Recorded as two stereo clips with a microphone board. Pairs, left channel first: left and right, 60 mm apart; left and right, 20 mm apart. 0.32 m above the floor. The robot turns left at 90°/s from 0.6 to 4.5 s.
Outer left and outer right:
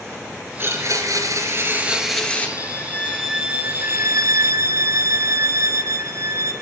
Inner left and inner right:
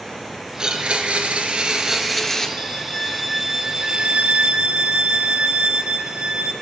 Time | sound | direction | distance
0.6 | a blender | 45° right | 3.5 m
2.6 | a violin | 60° left | 3 m